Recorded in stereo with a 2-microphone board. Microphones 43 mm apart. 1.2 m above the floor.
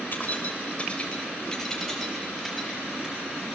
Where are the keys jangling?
40° left (ahead or behind), 3 m; by 3.6 s 10° right (ahead or behind), 5.5 m.